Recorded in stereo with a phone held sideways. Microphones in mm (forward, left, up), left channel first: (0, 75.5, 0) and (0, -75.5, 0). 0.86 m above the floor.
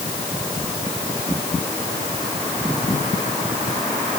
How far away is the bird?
I don't hear a bird.